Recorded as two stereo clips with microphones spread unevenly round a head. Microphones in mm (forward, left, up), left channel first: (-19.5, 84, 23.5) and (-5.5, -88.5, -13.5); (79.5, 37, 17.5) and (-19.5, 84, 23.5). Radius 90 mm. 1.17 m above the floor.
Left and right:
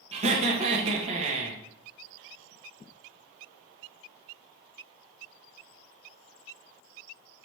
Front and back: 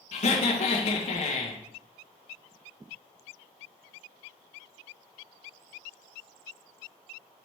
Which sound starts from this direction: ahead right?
Laughter, at 0.1 s.